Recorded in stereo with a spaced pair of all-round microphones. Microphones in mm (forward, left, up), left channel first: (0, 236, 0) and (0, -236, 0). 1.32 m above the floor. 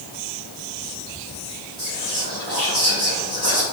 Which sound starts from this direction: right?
Whispering, at 1.8 s.